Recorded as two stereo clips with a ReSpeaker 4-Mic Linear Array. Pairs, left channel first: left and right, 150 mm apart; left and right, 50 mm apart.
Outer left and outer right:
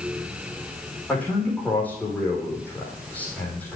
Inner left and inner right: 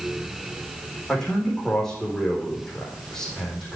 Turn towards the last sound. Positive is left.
turn(degrees=10)  # may be behind; listen again after turning